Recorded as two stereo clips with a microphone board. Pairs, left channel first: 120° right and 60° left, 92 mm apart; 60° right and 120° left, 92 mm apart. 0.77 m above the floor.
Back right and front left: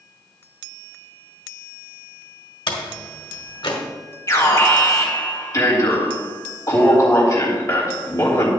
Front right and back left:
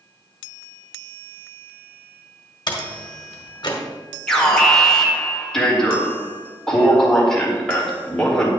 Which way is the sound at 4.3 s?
140° right.